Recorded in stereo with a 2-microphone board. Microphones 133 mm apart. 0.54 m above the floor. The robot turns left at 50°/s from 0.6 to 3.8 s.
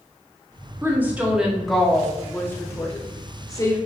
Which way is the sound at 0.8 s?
15° right (ahead or behind).